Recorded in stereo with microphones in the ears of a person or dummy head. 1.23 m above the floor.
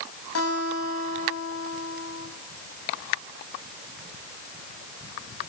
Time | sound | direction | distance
0.3 | a guitar | 85° left | 9.5 m